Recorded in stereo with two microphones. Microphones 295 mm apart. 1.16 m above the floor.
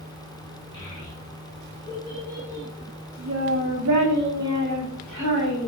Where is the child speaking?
15° left (ahead or behind), 1.3 m; by 5.7 s 65° right (ahead or behind), 1.4 m.